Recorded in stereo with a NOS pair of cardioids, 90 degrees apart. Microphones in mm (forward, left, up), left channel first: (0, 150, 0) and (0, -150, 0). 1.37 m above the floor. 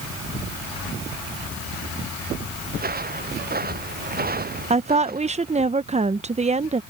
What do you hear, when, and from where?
2.7 s footsteps: 30° right
4.7 s a woman speaking: 20° right